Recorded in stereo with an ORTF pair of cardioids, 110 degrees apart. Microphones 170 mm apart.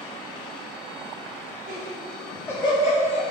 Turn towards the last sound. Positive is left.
turn(degrees=55)